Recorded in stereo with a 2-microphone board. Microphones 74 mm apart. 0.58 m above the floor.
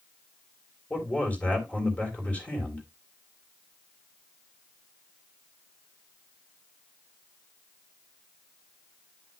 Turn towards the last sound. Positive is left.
turn(degrees=20)  # may be behind; listen again after turning